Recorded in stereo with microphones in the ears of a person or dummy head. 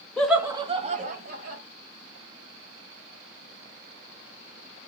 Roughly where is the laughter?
Centre.